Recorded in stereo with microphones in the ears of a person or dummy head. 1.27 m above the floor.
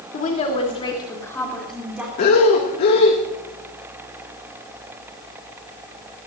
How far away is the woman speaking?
About 3.5 m.